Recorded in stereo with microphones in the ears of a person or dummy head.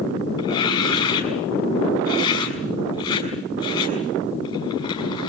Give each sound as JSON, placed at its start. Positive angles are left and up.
{"t": 0.4, "sound": "tearing paper", "side_deg": 35, "distance_m": 6.5}